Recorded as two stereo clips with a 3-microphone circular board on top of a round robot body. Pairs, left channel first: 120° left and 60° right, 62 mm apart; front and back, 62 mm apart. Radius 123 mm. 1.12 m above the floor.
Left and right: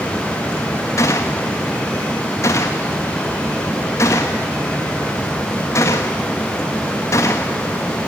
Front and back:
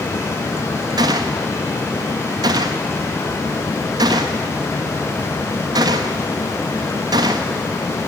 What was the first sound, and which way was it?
A gunshot, 170° left.